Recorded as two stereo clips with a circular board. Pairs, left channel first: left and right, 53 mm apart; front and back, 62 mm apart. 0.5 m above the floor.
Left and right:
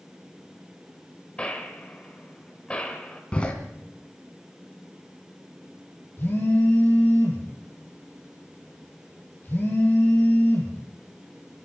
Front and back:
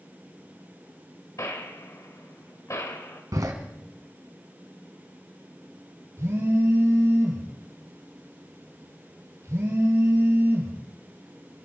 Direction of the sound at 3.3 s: 160° left.